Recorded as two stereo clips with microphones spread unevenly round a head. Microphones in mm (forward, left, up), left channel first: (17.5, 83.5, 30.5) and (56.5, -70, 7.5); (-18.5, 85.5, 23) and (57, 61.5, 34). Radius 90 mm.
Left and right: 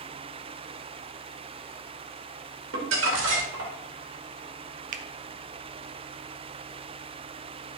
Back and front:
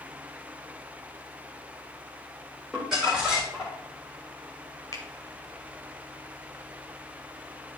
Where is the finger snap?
125° right, 0.5 m.